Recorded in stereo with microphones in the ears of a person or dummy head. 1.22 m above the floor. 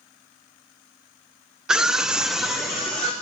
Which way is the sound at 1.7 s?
5° right (ahead or behind).